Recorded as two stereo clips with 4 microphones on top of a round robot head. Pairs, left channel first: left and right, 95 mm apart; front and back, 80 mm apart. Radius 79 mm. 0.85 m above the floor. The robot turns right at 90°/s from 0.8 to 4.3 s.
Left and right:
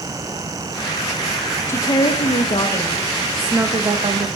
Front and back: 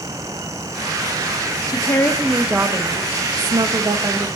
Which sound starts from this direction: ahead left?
A woman speaking, at 1.7 s.